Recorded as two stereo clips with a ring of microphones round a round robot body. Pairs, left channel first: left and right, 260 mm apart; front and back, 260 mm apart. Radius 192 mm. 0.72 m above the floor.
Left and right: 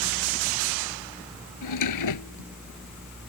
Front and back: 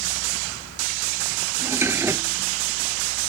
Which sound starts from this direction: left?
A drawer, at 1.6 s.